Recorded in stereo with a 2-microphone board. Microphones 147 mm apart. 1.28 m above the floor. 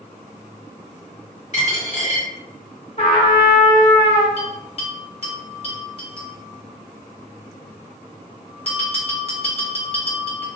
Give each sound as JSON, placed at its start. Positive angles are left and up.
{"t": 1.5, "sound": "a dropped coin", "side_deg": 50, "distance_m": 1.7}
{"t": 3.0, "sound": "a trumpet", "side_deg": 45, "distance_m": 1.1}
{"t": 4.4, "sound": "a bell", "side_deg": 40, "distance_m": 0.9}